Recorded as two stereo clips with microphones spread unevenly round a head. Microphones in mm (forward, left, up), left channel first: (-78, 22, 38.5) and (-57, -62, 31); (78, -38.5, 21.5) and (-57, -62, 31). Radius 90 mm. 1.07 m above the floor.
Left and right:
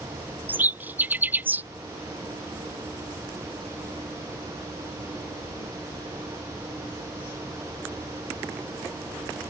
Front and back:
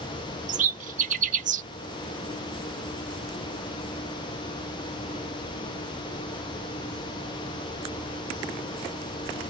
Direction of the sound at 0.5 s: 145° right.